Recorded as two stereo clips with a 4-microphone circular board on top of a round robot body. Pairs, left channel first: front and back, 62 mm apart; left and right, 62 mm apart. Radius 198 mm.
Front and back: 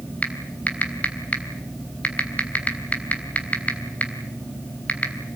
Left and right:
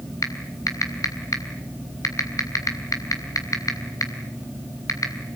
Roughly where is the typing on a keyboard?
Ahead left.